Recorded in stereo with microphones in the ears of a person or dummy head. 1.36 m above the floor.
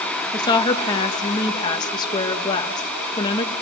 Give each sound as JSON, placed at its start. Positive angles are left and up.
{"t": 0.3, "sound": "a woman speaking", "side_deg": 20, "distance_m": 1.7}